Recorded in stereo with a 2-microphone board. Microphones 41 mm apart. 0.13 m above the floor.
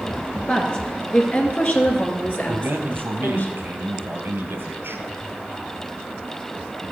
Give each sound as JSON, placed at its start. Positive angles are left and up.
{"t": 0.5, "sound": "a woman speaking", "side_deg": 25, "distance_m": 2.5}
{"t": 2.5, "sound": "a man speaking", "side_deg": -60, "distance_m": 2.0}